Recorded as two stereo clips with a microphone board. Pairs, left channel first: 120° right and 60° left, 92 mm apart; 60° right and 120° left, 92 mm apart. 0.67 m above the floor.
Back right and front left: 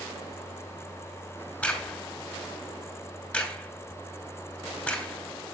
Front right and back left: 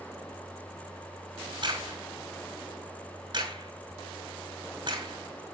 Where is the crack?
165° left, 4 m.